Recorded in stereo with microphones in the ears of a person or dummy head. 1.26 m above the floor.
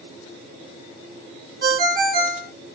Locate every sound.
1.6 s a ringtone: 55° right (ahead or behind), 1.1 m